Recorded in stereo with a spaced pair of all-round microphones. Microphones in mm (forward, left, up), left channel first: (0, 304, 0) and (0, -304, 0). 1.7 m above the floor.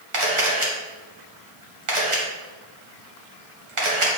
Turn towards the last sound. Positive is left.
turn(degrees=-55)  # may be behind; listen again after turning